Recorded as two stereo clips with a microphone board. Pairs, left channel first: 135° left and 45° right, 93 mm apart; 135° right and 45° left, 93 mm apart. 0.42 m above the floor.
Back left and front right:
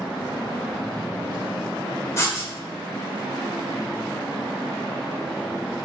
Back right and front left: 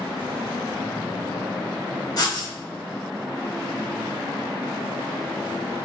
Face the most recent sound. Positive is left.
turn(degrees=-170)